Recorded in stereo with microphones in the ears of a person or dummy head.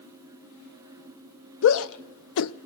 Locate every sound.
1.6 s a shout: 75° left (ahead or behind), 0.6 m